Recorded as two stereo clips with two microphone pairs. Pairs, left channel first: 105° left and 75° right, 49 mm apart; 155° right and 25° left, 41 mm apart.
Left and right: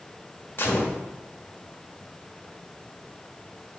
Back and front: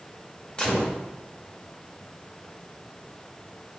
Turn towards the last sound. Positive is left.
turn(degrees=135)